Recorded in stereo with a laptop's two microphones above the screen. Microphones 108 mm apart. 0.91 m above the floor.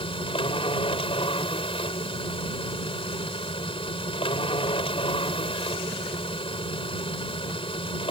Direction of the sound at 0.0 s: 60° left (ahead or behind).